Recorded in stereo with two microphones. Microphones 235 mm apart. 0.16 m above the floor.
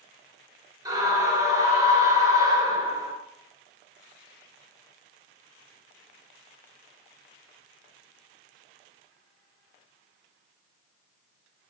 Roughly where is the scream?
Centre.